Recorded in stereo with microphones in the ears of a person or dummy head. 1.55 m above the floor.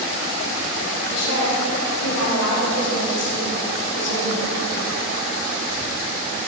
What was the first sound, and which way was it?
A woman speaking, 60° left (ahead or behind).